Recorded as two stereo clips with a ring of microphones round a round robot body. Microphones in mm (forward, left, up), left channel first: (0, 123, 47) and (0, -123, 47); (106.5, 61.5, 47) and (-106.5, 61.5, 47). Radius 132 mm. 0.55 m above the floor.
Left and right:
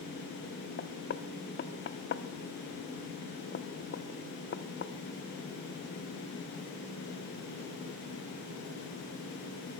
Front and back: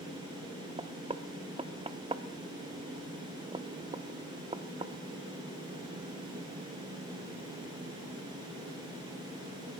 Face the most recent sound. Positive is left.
turn(degrees=120)